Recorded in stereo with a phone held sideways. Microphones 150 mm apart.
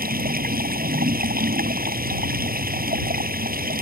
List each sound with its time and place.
0.0 s running water: 80° right